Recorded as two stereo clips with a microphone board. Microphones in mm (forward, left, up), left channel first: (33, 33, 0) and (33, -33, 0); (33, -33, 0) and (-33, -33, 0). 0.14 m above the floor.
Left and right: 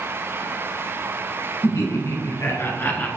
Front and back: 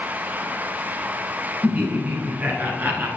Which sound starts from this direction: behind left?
Laughter, at 1.6 s.